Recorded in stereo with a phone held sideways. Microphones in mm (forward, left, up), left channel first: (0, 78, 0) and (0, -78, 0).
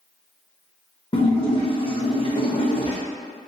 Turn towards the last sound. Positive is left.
turn(degrees=35)  # may be behind; listen again after turning